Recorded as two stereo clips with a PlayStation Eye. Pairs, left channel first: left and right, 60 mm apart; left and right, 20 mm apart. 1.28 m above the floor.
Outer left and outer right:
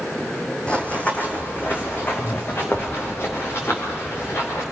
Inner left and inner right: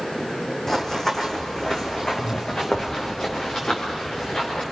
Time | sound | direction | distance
0.7 | running footsteps | 20° left (ahead or behind) | 2.5 m